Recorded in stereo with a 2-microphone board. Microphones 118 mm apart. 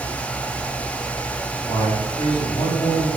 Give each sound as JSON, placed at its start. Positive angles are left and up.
{"t": 1.7, "sound": "a man speaking", "side_deg": 50, "distance_m": 4.0}